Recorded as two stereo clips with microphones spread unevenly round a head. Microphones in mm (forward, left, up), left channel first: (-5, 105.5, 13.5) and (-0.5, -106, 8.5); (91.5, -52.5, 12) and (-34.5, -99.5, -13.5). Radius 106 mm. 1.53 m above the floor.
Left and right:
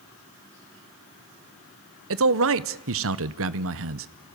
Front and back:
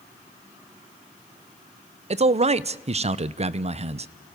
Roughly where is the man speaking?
Behind right.